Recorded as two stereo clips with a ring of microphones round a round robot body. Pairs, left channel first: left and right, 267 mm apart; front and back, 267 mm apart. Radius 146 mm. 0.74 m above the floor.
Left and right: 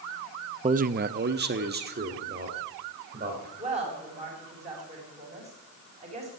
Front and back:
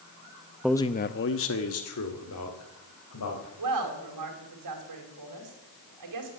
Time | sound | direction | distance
0.6 | a man speaking | 100° right | 0.5 m
3.6 | a woman speaking | 160° right | 4 m